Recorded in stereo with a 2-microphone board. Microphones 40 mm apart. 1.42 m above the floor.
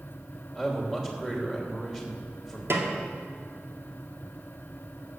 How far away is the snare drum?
About 1.9 m.